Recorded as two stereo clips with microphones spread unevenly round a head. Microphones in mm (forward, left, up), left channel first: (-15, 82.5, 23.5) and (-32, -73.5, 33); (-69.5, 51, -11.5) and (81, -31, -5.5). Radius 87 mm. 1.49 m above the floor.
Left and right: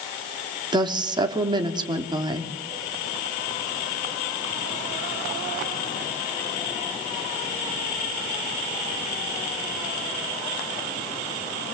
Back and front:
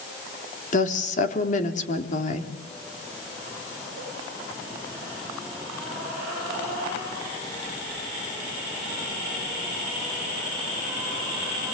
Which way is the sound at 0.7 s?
160° right.